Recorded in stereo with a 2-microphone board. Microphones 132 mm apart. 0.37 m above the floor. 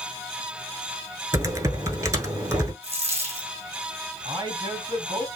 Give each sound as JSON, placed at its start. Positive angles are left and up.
{"t": 1.3, "sound": "typing on a keyboard", "side_deg": -25, "distance_m": 0.9}
{"t": 2.8, "sound": "a dropped coin", "side_deg": -50, "distance_m": 3.0}
{"t": 4.2, "sound": "a man speaking", "side_deg": -40, "distance_m": 3.0}